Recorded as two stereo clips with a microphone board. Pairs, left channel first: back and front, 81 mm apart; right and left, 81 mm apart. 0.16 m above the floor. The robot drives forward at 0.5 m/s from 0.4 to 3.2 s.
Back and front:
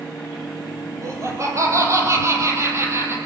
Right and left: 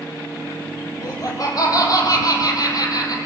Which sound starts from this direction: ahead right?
Laughter, at 1.0 s.